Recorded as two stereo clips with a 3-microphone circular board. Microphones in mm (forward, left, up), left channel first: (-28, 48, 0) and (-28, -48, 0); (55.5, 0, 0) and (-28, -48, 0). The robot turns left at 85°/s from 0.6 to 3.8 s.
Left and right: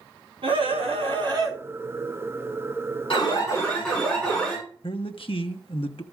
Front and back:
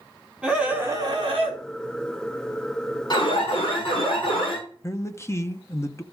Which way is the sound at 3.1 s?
65° left.